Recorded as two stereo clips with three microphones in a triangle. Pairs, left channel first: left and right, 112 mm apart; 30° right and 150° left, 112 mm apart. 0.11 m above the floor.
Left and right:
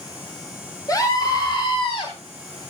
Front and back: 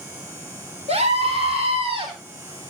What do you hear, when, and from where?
0.9 s a scream: 145° left, 4 m; by 2.1 s 120° left, 4 m